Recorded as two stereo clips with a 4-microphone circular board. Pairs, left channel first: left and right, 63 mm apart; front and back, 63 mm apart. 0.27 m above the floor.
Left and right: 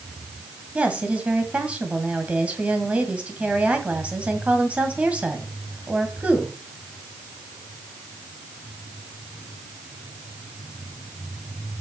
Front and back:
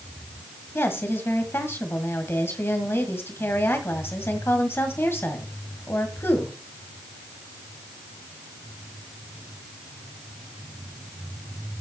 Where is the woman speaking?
30° right, 1.9 m.